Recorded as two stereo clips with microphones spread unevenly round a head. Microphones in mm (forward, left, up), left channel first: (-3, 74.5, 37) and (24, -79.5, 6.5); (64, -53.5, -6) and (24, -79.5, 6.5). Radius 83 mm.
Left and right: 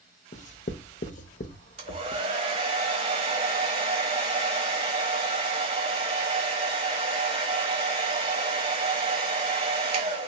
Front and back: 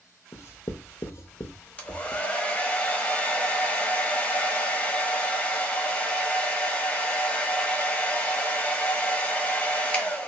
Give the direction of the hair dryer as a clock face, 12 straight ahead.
1 o'clock.